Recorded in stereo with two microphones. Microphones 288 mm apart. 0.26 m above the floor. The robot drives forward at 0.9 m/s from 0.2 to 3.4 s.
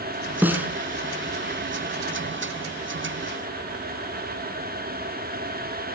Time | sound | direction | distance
0.4 | a snare drum | 5° right (ahead or behind) | 1.5 m